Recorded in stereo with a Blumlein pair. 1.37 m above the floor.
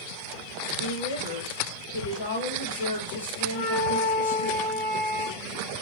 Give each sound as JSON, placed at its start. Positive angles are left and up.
{"t": 0.8, "sound": "a woman speaking", "azimuth_deg": 60, "distance_m": 1.2}
{"t": 3.5, "sound": "a flute", "azimuth_deg": 55, "distance_m": 1.4}